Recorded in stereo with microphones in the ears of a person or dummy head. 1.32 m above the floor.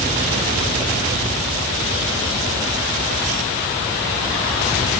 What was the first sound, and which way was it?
Only background noise.